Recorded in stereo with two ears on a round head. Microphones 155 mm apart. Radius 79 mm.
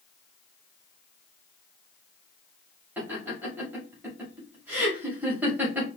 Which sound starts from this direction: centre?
Laughter, at 3.0 s.